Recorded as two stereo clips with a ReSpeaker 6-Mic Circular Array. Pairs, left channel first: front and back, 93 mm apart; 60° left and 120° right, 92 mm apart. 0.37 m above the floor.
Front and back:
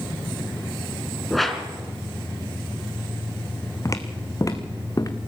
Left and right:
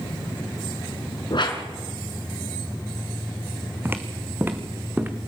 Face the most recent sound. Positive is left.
turn(degrees=-50)